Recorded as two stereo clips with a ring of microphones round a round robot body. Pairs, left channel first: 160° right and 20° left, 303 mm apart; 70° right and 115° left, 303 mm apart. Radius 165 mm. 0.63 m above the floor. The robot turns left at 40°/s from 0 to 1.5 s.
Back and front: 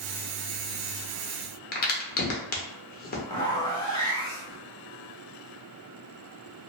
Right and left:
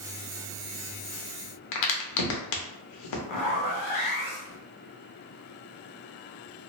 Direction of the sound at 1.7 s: 95° right.